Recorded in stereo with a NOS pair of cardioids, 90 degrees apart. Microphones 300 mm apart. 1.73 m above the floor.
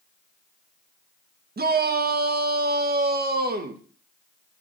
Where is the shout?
30° right, 1.7 m.